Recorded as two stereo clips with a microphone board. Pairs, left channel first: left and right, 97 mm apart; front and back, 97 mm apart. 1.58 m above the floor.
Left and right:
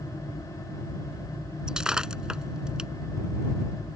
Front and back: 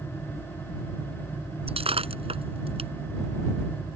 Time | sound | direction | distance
1.7 | breaking glass | 175° right | ?